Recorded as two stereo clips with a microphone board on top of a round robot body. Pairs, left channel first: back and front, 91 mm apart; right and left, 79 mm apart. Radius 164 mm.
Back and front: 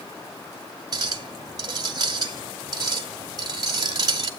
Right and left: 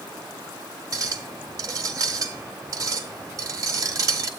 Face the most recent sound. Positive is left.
turn(degrees=45)